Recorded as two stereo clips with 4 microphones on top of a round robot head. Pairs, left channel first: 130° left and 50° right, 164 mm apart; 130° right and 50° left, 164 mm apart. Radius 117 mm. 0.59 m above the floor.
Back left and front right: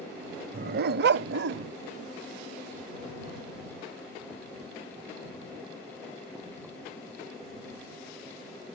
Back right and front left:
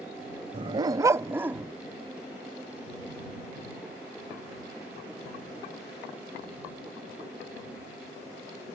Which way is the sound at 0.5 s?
10° right.